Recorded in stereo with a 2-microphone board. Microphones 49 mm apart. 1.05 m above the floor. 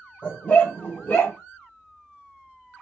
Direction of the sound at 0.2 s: 45° left (ahead or behind).